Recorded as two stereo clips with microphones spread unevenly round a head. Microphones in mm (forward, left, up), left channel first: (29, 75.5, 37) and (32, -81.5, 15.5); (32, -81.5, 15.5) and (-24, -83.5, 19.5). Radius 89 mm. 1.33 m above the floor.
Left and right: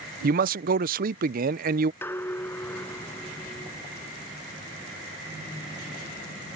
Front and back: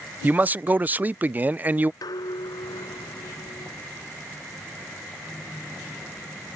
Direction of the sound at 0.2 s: 115° right.